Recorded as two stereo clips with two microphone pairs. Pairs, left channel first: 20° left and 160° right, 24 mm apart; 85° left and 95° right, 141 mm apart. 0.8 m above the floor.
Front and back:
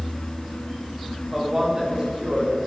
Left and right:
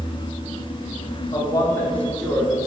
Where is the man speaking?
135° left, 1.7 m; by 2.6 s straight behind, 3 m.